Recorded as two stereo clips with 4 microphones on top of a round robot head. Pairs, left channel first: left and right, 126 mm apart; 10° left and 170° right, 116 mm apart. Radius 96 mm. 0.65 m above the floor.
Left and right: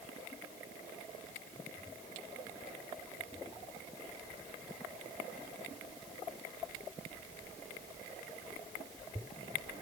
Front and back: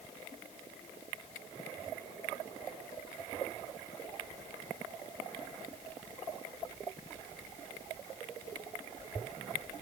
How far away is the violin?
No violin in this recording.